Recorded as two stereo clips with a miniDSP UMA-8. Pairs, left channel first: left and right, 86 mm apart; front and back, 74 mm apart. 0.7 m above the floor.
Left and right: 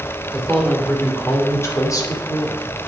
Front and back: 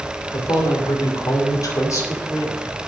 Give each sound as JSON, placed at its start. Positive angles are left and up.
{"t": 0.3, "sound": "a man speaking", "azimuth_deg": 5, "distance_m": 2.5}